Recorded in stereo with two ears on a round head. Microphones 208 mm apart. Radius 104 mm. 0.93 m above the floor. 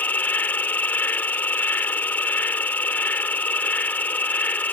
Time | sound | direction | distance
0.0 | an insect | 5° left (ahead or behind) | ?